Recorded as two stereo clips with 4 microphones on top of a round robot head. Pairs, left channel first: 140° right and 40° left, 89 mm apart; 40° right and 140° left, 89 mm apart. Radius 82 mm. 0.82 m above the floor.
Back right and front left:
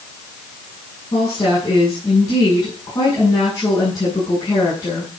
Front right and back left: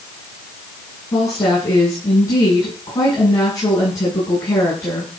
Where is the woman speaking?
95° right, 9 m.